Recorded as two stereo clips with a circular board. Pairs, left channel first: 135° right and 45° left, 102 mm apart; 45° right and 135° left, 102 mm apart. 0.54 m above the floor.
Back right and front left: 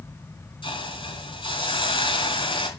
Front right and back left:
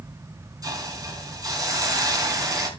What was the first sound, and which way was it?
A hiss, 170° right.